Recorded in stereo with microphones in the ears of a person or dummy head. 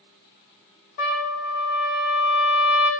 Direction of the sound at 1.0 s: 55° left (ahead or behind).